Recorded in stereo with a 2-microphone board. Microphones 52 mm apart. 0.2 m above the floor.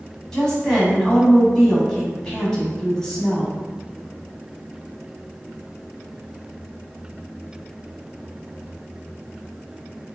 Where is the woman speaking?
10° left (ahead or behind), 1.0 m.